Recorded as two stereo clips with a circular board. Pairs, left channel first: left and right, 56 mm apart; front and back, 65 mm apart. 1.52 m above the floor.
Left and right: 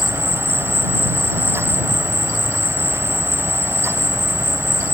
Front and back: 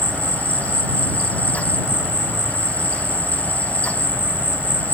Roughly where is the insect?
Behind right.